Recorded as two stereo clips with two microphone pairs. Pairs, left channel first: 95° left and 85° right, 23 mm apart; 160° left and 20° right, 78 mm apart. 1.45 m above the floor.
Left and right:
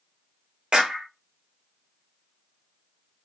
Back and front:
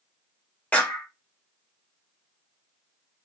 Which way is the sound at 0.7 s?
130° right.